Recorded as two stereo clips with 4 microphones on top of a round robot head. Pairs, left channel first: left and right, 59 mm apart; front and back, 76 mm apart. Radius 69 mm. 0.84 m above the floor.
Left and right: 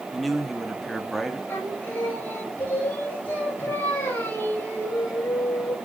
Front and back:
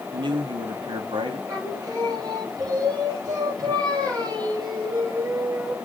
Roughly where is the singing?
Behind left.